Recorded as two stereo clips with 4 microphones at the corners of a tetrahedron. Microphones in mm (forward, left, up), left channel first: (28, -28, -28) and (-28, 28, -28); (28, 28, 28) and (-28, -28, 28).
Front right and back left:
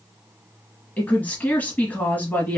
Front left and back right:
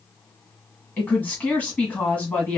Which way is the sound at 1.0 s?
5° right.